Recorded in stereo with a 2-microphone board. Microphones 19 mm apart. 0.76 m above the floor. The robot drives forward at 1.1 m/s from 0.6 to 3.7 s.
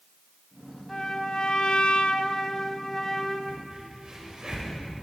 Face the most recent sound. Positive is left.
turn(degrees=-40)  # may be behind; listen again after turning